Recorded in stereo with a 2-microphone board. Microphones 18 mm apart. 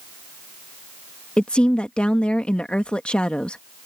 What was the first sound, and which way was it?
A woman speaking, 65° left (ahead or behind).